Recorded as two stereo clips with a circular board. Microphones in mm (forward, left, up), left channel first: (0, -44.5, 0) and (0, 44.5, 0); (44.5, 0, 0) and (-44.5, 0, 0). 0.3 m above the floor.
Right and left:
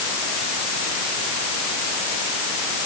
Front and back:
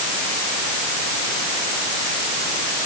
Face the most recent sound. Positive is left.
No sound to turn to.